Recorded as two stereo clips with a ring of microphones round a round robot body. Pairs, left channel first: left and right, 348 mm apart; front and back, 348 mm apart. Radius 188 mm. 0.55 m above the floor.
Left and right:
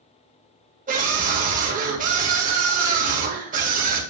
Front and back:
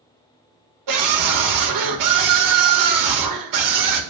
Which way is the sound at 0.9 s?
160° right.